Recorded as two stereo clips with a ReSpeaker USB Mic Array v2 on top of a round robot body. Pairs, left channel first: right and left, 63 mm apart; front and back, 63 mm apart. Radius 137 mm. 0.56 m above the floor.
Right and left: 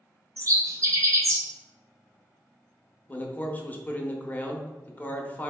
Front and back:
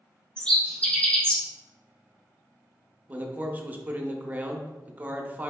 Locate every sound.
0.4 s a bird: 70° left, 1.0 m
3.1 s a man speaking: 135° right, 0.7 m